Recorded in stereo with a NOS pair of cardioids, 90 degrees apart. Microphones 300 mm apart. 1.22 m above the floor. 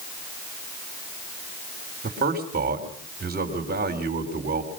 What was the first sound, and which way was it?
A man speaking, 30° right.